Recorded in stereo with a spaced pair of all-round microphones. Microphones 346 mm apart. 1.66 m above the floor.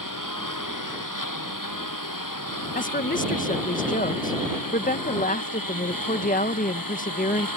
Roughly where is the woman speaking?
Left.